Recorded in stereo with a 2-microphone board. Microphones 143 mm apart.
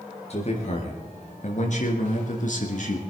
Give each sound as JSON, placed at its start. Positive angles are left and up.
{"t": 0.3, "sound": "a man speaking", "side_deg": 50, "distance_m": 4.0}